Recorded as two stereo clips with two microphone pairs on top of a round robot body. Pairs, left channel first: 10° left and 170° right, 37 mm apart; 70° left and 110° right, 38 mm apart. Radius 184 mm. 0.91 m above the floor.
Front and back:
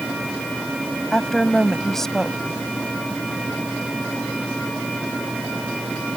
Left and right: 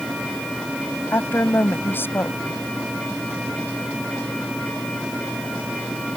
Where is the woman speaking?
90° left.